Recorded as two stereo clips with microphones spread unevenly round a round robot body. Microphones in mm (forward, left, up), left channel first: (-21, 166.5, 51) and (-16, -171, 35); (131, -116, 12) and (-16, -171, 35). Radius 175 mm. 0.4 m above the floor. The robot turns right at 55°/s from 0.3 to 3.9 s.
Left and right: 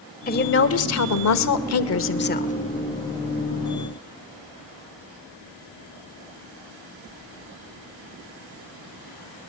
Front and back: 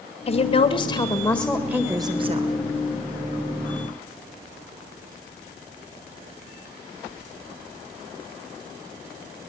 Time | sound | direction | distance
0.3 | a woman speaking | 35° left | 1.5 m